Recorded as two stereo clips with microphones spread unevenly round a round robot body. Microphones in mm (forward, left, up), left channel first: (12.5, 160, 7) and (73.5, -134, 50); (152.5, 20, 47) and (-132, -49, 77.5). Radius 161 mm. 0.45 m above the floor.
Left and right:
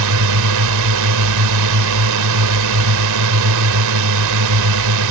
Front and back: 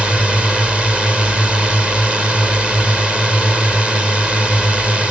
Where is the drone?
75° right.